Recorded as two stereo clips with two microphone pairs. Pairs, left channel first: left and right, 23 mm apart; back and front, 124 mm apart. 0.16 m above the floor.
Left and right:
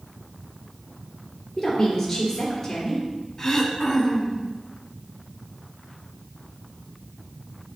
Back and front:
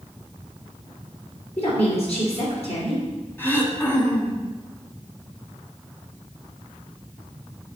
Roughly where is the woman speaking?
Behind.